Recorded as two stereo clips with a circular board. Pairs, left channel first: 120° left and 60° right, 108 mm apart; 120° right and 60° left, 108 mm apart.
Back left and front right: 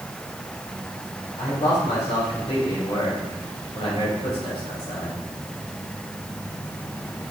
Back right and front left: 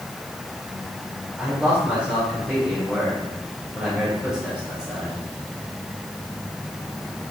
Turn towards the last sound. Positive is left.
turn(degrees=140)